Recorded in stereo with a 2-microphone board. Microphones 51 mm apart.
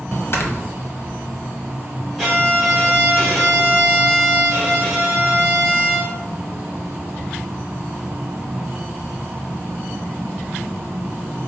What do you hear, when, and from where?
0.3 s snoring: 50° left (ahead or behind), 0.6 m
2.2 s a violin: 5° left (ahead or behind), 1.8 m